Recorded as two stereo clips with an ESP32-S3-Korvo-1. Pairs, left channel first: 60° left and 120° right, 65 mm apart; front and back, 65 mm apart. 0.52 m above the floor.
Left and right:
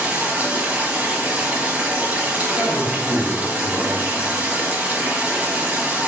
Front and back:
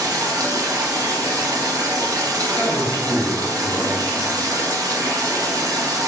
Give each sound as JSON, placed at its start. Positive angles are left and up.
{"t": 0.0, "sound": "running water", "azimuth_deg": 175, "distance_m": 0.8}
{"t": 2.5, "sound": "a man speaking", "azimuth_deg": 50, "distance_m": 1.0}